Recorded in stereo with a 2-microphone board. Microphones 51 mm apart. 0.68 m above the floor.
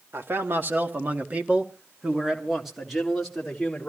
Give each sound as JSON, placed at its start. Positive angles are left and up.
{"t": 0.1, "sound": "a man speaking", "side_deg": -50, "distance_m": 1.5}